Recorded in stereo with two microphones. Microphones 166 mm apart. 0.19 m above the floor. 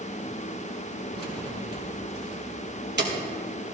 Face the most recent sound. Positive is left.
turn(degrees=-75)  # may be behind; listen again after turning